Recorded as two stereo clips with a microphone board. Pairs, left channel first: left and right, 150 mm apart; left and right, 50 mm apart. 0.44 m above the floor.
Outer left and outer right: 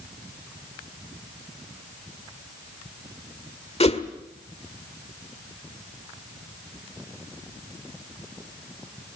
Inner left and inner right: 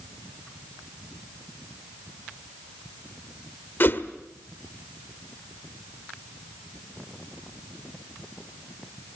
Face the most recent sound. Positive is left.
turn(degrees=45)  # may be behind; listen again after turning